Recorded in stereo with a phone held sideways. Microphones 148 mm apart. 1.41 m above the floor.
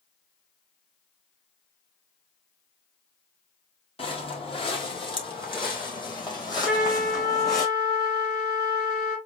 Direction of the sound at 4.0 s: 40° left (ahead or behind).